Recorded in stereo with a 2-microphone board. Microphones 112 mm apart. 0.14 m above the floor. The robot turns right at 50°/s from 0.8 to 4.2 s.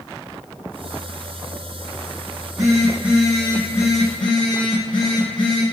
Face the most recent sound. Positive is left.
turn(degrees=45)